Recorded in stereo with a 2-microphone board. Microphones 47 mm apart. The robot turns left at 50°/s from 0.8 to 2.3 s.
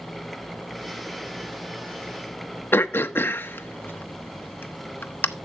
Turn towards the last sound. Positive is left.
turn(degrees=50)  # may be behind; listen again after turning